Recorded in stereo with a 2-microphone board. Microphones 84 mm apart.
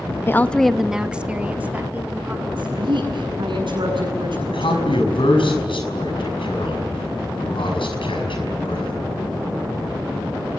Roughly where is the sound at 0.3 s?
Left.